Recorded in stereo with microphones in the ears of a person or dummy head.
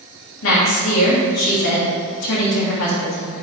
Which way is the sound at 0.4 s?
70° left (ahead or behind).